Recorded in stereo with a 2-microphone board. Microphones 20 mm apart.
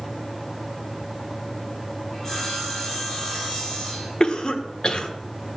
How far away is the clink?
I don't hear a clink.